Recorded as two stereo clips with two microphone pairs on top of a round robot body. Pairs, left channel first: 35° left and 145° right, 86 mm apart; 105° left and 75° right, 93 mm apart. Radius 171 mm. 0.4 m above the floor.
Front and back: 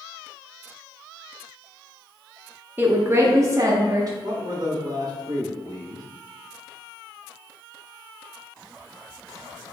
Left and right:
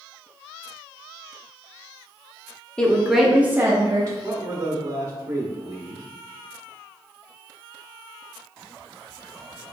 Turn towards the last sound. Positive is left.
turn(degrees=-135)